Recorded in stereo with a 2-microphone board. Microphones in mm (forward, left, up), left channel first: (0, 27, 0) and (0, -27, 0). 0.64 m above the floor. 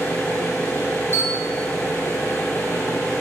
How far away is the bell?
About 1.0 m.